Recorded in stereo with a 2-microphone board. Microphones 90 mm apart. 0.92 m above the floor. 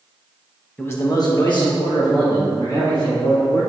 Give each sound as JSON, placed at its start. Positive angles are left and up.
{"t": 0.8, "sound": "a man speaking", "side_deg": 15, "distance_m": 0.9}